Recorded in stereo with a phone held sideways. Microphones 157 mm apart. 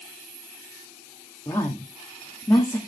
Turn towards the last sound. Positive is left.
turn(degrees=15)  # may be behind; listen again after turning